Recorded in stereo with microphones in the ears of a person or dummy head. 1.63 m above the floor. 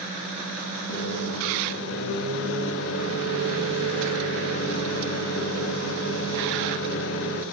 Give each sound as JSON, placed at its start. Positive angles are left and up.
{"t": 0.9, "sound": "a microwave", "side_deg": 80, "distance_m": 3.5}